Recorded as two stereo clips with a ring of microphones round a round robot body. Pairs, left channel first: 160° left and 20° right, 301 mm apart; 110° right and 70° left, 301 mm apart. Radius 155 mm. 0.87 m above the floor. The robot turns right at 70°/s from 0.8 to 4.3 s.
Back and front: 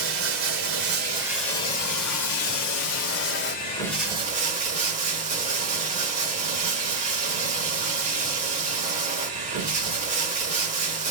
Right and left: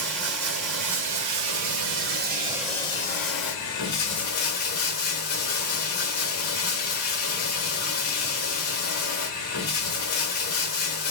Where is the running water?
25° left, 1.2 m; by 11.1 s 90° right, 1.2 m.